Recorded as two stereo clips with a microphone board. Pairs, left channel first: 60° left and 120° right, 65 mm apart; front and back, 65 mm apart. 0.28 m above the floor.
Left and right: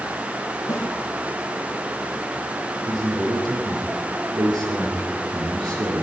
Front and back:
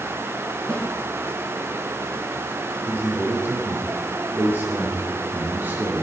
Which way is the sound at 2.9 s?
120° right.